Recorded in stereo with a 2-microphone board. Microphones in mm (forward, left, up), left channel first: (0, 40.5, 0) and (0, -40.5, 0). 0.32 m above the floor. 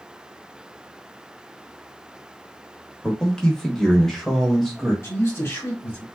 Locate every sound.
3.0 s a man speaking: 10° left (ahead or behind), 1.0 m; by 4.9 s centre (ahead or behind), 1.4 m
5.0 s a man speaking: 30° left (ahead or behind), 1.6 m